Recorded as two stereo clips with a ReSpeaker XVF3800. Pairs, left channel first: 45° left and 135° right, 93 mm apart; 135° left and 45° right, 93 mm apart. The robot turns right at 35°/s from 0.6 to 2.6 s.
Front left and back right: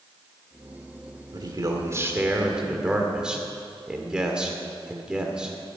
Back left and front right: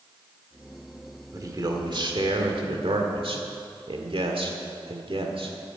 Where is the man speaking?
95° right, 1.8 m; by 5.5 s 55° right, 1.8 m.